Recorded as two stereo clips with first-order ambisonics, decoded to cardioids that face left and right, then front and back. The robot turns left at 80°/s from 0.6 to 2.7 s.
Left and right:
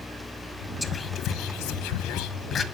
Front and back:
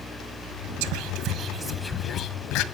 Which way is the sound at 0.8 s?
170° left.